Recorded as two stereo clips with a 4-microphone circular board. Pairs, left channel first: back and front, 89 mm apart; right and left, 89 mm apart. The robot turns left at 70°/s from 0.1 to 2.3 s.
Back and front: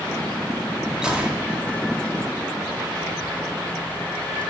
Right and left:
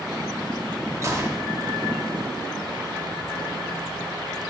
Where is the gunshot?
75° left, 0.8 m; by 1.5 s 45° left, 0.8 m.